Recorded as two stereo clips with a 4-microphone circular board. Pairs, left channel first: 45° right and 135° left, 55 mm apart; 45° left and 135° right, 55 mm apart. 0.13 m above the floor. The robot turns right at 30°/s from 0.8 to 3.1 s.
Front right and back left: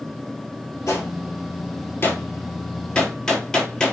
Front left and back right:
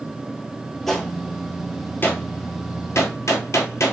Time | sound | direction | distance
0.9 | a gunshot | 35° right | 0.8 m